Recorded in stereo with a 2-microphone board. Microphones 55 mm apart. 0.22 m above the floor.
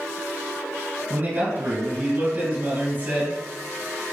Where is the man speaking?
50° right (ahead or behind), 1.8 m.